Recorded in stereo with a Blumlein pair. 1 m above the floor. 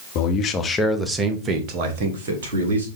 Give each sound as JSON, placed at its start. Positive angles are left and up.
{"t": 0.1, "sound": "a man speaking", "azimuth_deg": 40, "distance_m": 1.0}